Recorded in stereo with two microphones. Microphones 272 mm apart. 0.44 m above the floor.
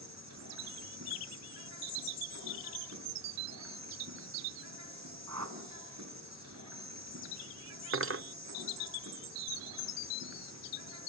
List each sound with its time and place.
0.0 s an insect: 75° right (ahead or behind), 7.5 m
5.3 s a whoosh: 85° right, 2 m
7.9 s cutlery clinking: 50° right (ahead or behind), 0.5 m